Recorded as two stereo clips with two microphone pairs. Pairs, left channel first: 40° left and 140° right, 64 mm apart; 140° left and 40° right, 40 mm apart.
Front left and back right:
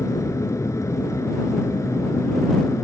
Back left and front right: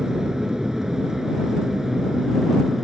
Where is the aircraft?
35° left; by 2.8 s 40° left.